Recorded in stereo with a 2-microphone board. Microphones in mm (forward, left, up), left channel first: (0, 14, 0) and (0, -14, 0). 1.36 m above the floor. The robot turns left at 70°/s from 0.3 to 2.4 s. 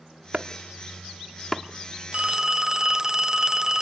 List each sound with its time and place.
0.3 s chopping: 50° right (ahead or behind), 1.2 m; by 1.6 s 5° left (ahead or behind), 1.2 m
2.1 s a phone ringing: 35° right (ahead or behind), 0.5 m; by 3.8 s 20° right (ahead or behind), 0.5 m